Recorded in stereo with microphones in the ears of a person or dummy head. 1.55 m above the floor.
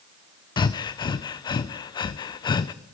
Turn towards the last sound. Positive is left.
turn(degrees=30)  # may be behind; listen again after turning